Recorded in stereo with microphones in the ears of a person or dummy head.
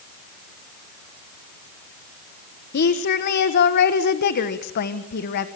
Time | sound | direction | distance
2.7 | a woman speaking | 45° left (ahead or behind) | 1.4 m